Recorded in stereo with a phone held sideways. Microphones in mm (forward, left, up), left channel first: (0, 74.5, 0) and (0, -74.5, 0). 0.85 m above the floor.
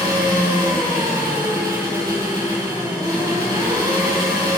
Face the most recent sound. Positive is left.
turn(degrees=-20)  # may be behind; listen again after turning